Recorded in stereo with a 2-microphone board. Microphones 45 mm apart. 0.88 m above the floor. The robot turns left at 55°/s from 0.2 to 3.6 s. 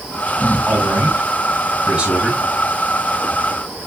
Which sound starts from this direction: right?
A man speaking, at 0.7 s.